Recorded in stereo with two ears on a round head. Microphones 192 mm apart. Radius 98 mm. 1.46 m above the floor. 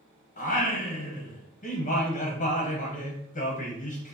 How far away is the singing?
About 0.9 m.